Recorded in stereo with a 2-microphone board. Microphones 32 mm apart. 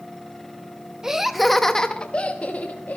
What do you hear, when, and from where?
1.0 s laughter: 15° right (ahead or behind), 0.8 m; by 3.0 s 55° left (ahead or behind), 1.1 m